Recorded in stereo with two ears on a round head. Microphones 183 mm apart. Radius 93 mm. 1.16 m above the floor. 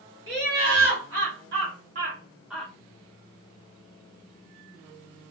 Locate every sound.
0.3 s laughter: 75° right (ahead or behind), 2 m; by 2.7 s 10° left (ahead or behind), 0.7 m